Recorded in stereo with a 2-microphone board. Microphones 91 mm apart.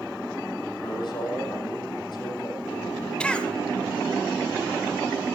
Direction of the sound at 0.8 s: 55° left (ahead or behind).